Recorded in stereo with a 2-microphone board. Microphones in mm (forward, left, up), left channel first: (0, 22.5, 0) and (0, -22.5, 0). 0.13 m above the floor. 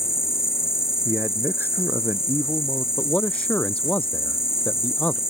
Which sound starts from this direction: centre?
An insect, at 0.0 s.